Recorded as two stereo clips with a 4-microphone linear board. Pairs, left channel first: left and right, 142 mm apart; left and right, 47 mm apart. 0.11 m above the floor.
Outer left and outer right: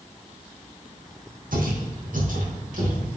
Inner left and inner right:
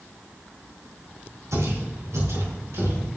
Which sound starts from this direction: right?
Footsteps, at 1.5 s.